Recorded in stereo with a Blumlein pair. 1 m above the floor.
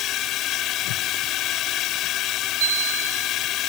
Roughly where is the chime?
Ahead right.